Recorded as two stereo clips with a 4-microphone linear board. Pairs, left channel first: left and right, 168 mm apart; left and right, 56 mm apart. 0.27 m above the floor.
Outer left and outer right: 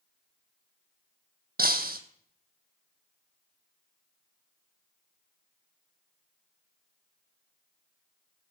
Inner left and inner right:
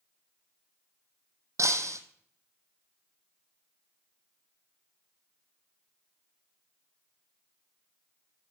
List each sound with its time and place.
1.6 s breaking glass: 65° right (ahead or behind), 1.1 m